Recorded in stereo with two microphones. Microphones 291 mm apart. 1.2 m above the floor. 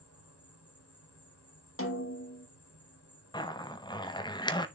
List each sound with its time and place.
0.0 s an insect: 50° left (ahead or behind), 3 m
1.8 s a snare drum: 45° left (ahead or behind), 1.4 m
3.3 s a zipper: 15° left (ahead or behind), 0.7 m